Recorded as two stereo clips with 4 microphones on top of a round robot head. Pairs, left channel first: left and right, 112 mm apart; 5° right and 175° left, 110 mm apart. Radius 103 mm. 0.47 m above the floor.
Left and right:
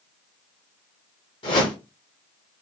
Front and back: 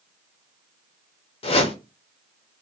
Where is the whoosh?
35° left, 0.7 m.